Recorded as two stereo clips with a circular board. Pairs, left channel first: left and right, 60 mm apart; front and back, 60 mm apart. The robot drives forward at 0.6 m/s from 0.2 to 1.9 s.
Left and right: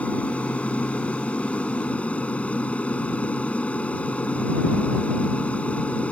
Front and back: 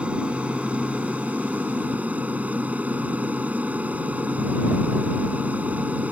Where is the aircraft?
130° left; by 6.1 s 140° left.